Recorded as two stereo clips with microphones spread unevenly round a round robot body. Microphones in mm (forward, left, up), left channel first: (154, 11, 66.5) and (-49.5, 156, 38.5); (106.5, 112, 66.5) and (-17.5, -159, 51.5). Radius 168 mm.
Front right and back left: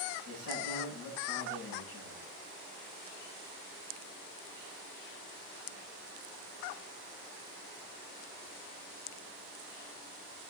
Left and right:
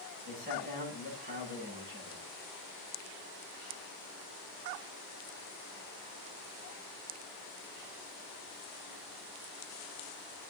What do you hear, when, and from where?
0.2 s a man speaking: 55° right, 8.5 m